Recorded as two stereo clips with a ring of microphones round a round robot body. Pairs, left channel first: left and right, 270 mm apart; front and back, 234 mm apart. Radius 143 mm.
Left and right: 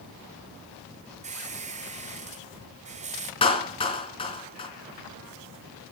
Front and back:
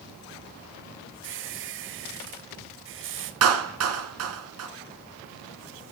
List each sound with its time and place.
1.2 s a squeak: 150° right, 1.6 m
3.4 s a clap: 160° left, 3 m